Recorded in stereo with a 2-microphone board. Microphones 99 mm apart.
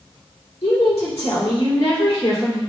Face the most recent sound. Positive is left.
turn(degrees=85)